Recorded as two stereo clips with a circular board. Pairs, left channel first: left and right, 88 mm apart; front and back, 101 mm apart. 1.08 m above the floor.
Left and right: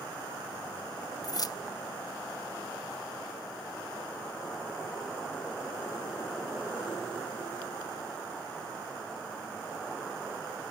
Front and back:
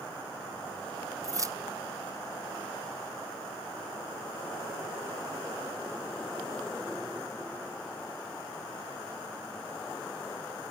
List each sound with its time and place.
1.2 s keys jangling: 125° left, 0.5 m